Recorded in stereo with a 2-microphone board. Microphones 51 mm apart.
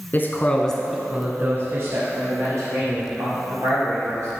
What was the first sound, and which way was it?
A man speaking, 45° left (ahead or behind).